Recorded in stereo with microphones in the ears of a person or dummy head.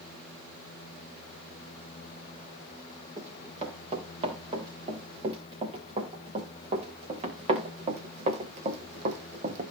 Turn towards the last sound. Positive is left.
turn(degrees=-45)  # may be behind; listen again after turning